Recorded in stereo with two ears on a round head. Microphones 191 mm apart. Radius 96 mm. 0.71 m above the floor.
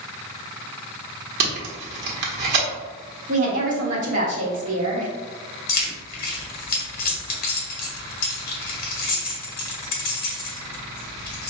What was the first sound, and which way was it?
Tape being pulled, 50° right (ahead or behind).